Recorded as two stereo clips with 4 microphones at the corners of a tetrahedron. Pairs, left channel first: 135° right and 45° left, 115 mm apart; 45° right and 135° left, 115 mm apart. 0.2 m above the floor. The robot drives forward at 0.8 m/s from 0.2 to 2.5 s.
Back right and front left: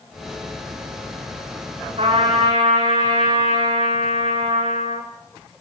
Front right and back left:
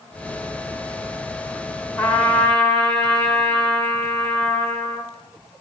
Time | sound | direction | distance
2.0 | a trumpet | 40° left | 9.5 m